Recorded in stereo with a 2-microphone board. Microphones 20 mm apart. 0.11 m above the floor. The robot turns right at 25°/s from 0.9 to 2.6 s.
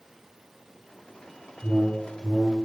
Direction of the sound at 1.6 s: 25° right (ahead or behind).